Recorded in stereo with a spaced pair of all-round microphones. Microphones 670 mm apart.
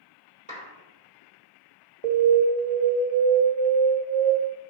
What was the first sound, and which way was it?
A clap, 10° right (ahead or behind).